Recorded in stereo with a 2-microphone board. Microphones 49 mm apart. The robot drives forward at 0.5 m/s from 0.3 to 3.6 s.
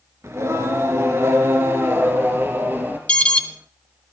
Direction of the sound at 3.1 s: 25° left (ahead or behind).